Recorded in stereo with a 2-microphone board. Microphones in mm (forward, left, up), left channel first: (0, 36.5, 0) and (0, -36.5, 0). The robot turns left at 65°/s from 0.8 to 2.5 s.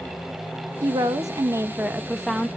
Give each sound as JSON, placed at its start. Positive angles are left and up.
{"t": 0.8, "sound": "a woman speaking", "azimuth_deg": -90, "distance_m": 0.8}